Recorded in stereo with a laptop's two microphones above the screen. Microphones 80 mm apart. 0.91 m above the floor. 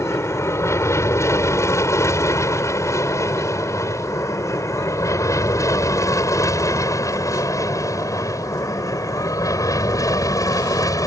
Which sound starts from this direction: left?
An aircraft, at 0.0 s.